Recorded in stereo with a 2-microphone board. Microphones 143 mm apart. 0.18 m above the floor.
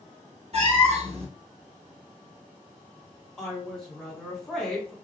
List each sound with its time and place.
0.5 s a cat meowing: 45° right (ahead or behind), 1.1 m
3.4 s a woman speaking: centre (ahead or behind), 1.5 m